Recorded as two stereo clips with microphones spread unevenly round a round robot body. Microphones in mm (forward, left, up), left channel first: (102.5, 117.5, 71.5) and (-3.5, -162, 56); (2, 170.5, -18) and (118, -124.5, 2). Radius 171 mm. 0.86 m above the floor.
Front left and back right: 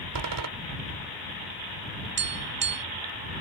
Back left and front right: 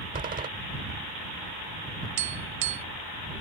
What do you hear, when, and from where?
0.1 s a door slam: 135° right
2.2 s tapping: 60° right